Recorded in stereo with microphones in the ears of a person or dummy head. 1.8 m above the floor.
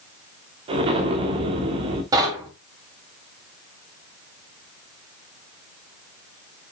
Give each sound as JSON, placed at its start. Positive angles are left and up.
{"t": 0.7, "sound": "an explosion", "side_deg": -30, "distance_m": 2.5}
{"t": 2.1, "sound": "knocking", "side_deg": -20, "distance_m": 3.5}